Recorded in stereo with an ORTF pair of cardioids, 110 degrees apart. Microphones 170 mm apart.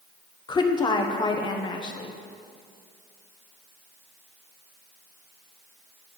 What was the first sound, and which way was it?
A woman speaking, 25° left.